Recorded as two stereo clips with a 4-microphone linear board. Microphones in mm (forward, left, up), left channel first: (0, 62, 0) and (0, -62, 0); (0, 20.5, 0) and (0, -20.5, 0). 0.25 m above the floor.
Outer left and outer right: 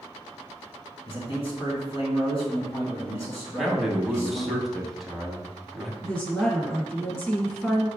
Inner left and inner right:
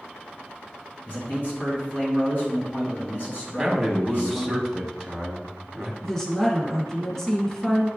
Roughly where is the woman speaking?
Centre.